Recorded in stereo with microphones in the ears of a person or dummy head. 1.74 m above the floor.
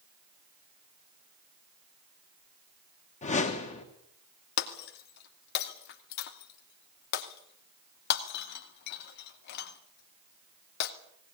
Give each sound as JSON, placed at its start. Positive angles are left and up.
{"t": 3.2, "sound": "a whoosh", "side_deg": 30, "distance_m": 2.0}
{"t": 4.6, "sound": "breaking glass", "side_deg": 60, "distance_m": 2.0}